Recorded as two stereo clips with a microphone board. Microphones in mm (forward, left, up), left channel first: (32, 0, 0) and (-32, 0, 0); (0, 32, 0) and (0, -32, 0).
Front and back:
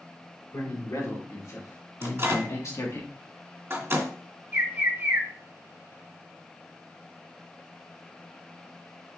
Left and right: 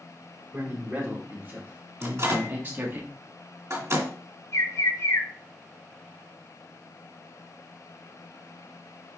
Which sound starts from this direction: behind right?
A microwave, at 2.0 s.